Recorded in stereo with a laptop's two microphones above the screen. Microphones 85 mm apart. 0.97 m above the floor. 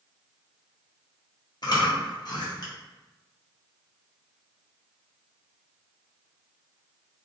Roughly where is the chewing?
Left.